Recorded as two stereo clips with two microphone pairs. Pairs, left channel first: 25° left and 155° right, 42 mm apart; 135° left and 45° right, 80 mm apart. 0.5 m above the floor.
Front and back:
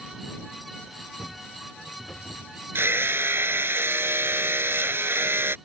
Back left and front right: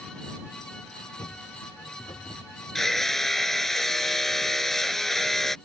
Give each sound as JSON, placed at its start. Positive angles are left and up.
{"t": 1.2, "sound": "footsteps", "azimuth_deg": 100}
{"t": 2.8, "sound": "hammering", "azimuth_deg": -135}